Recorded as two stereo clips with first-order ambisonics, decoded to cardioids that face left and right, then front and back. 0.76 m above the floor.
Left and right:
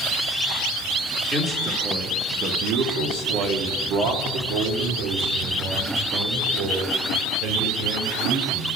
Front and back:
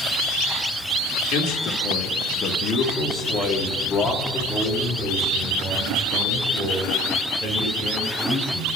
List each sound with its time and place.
1.3 s a man speaking: 25° right, 1.8 m; by 8.8 s 110° right, 4 m